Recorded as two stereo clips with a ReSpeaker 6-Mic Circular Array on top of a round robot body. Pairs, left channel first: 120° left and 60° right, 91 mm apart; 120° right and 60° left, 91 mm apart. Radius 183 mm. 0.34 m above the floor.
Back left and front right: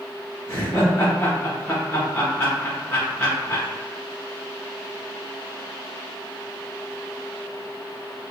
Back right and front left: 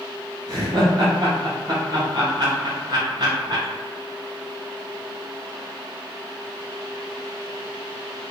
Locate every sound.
0.5 s laughter: 70° left, 1.4 m